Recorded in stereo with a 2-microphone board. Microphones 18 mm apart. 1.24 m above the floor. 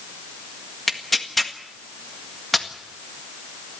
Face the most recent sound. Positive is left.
turn(degrees=5)  # may be behind; listen again after turning